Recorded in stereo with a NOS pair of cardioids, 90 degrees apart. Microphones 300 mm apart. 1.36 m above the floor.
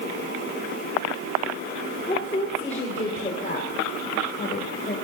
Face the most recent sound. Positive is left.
turn(degrees=30)